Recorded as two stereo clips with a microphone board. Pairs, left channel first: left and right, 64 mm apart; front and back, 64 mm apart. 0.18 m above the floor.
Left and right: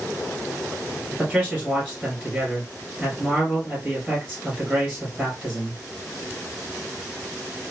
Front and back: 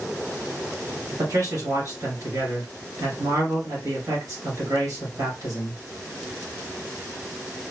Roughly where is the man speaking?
Behind.